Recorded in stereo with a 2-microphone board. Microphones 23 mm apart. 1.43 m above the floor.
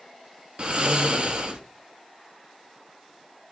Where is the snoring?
40° right (ahead or behind), 1.0 m.